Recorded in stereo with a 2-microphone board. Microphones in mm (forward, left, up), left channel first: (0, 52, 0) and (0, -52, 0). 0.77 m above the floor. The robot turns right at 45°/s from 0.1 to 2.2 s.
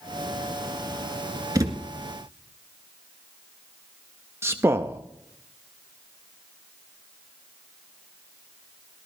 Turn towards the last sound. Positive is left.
turn(degrees=-25)  # may be behind; listen again after turning